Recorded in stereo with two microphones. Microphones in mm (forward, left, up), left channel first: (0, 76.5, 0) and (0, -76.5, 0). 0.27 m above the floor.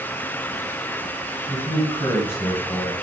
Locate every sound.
1.5 s a man speaking: 15° left (ahead or behind), 1.9 m